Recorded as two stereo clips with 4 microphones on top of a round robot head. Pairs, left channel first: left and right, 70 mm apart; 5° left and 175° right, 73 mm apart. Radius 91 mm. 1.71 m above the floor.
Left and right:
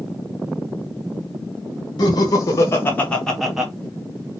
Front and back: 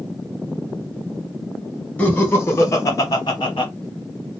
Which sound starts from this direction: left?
Laughter, at 2.0 s.